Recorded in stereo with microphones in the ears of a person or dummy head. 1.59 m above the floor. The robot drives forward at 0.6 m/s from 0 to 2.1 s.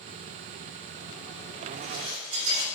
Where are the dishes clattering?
70° right (ahead or behind), 4 m; by 2.6 s 65° right (ahead or behind), 4 m.